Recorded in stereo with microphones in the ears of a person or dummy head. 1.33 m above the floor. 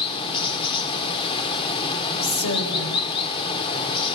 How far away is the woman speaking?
About 5.5 m.